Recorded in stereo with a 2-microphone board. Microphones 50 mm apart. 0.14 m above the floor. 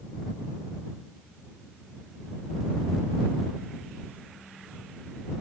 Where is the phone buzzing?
I don't hear a phone buzzing.